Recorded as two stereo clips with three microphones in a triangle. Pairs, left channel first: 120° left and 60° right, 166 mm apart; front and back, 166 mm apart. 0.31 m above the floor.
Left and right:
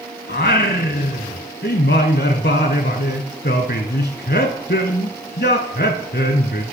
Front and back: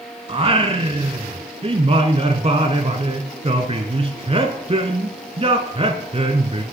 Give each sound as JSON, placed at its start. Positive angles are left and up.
{"t": 0.3, "sound": "singing", "azimuth_deg": 125, "distance_m": 0.7}